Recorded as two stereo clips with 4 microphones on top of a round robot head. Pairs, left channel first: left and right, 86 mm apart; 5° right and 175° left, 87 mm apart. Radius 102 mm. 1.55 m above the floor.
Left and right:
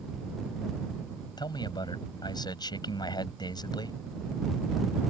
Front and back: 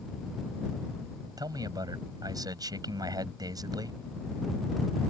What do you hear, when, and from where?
1.4 s a man speaking: 130° left